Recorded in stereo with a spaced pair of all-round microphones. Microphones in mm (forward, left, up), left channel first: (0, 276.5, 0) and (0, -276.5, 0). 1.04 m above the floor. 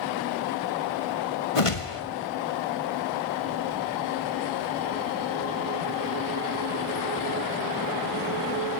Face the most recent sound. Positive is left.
turn(degrees=65)  # may be behind; listen again after turning